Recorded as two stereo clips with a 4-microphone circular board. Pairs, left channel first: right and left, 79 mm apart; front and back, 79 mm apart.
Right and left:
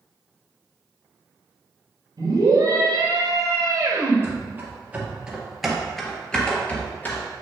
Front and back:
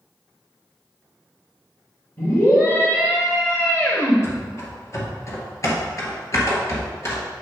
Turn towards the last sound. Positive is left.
turn(degrees=-35)